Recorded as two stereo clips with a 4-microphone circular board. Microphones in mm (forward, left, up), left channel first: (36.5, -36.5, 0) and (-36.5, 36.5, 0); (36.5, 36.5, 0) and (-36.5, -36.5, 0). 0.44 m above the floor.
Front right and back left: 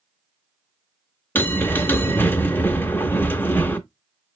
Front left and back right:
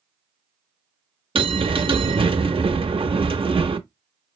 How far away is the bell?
About 0.6 m.